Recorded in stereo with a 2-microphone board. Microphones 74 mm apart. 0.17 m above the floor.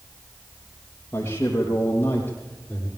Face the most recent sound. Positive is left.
turn(degrees=20)  # may be behind; listen again after turning